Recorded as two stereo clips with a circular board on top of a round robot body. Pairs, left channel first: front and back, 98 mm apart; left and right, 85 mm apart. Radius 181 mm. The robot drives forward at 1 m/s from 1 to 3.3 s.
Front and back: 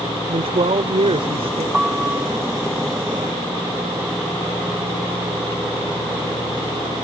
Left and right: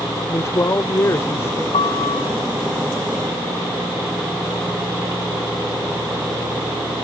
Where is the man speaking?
150° left; by 1.6 s 155° left.